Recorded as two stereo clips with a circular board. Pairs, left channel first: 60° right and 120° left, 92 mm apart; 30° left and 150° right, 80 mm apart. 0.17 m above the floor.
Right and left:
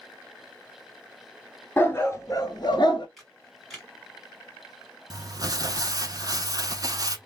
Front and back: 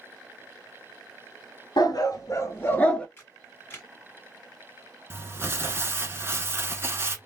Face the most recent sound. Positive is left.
turn(degrees=155)